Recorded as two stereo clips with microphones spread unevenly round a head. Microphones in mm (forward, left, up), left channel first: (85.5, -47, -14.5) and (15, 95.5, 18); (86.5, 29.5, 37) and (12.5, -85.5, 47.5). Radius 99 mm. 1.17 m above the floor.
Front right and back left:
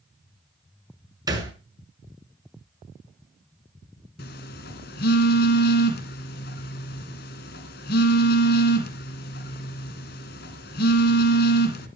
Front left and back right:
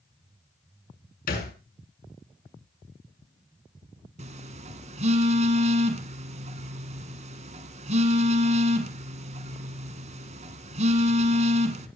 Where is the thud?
50° left, 6.5 m.